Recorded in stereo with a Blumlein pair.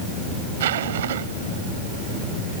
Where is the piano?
No piano in this recording.